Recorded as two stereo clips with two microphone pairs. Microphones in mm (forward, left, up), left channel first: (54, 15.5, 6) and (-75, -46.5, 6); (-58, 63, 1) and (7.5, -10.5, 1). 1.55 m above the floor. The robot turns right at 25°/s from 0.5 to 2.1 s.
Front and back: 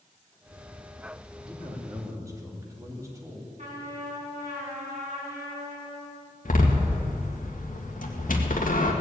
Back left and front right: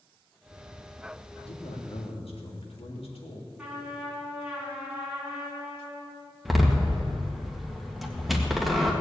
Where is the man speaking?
120° left, 2.5 m; by 3.5 s 140° left, 2.5 m.